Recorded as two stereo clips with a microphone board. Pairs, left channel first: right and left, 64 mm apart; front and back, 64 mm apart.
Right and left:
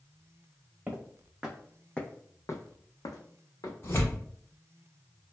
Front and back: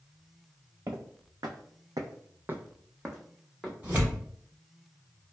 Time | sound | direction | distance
0.9 | footsteps | 150° left | 0.9 m
3.8 | tearing paper | 115° right | 1.3 m